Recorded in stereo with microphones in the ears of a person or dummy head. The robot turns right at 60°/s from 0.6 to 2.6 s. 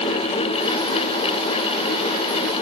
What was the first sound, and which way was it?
Only background noise.